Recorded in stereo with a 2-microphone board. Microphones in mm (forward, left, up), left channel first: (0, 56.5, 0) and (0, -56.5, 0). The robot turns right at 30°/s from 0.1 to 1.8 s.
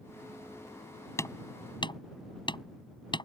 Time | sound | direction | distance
1.2 | hammering | 25° left (ahead or behind) | ?